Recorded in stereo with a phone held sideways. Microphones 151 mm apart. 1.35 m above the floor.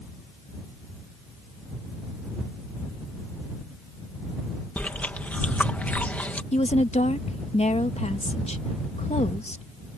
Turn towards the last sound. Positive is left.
turn(degrees=45)  # may be behind; listen again after turning